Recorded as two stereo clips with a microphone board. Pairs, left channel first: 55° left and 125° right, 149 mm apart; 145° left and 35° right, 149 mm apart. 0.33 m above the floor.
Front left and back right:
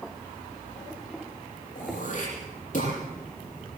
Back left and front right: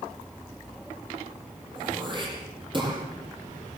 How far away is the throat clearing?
About 8.5 m.